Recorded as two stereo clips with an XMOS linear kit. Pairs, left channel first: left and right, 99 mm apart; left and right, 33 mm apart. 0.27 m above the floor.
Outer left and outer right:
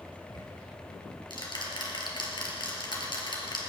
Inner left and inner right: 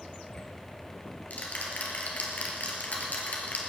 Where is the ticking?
50° left (ahead or behind), 3 m.